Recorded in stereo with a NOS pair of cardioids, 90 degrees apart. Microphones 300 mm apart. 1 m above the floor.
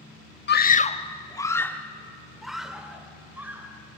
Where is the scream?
35° left, 1.2 m; by 3.7 s 5° right, 4 m.